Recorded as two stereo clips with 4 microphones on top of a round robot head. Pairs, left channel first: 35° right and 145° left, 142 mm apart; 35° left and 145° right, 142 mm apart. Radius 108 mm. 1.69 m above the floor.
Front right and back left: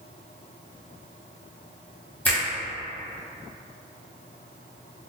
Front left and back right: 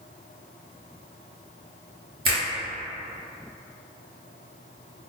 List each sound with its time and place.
2.2 s a finger snap: 115° right, 1.3 m